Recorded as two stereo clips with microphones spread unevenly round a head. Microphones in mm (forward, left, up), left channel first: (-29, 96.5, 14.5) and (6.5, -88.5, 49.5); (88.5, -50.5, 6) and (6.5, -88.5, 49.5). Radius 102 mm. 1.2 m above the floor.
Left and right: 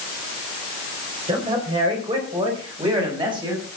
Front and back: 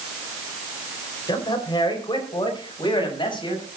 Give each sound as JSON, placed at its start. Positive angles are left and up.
{"t": 1.3, "sound": "a man speaking", "azimuth_deg": -15, "distance_m": 4.5}